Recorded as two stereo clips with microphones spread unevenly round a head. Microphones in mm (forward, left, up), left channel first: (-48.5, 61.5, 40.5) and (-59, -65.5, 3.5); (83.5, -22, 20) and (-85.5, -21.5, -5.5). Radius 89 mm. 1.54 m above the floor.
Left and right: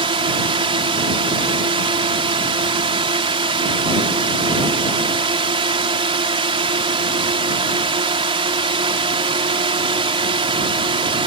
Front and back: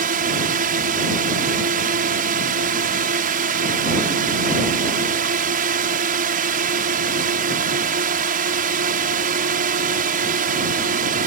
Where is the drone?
140° right.